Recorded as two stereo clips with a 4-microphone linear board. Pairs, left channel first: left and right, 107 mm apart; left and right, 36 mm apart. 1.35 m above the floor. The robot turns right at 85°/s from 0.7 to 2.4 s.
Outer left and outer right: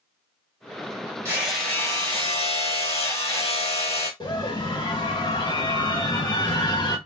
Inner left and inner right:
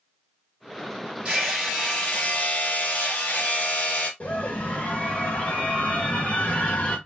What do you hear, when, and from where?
1.2 s hammering: 25° right, 2 m; by 4.1 s 70° left, 2 m
4.2 s a scream: 45° left (ahead or behind), 2.5 m